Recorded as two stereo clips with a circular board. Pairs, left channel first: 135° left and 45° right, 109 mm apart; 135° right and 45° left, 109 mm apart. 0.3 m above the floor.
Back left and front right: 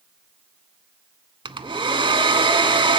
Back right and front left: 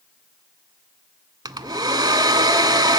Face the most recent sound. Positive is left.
turn(degrees=-5)